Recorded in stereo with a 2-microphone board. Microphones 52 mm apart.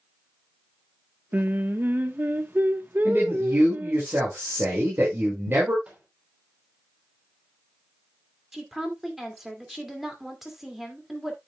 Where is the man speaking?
45° right (ahead or behind), 4.5 m.